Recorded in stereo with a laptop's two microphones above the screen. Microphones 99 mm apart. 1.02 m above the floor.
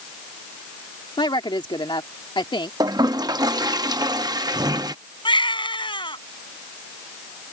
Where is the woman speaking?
55° left (ahead or behind).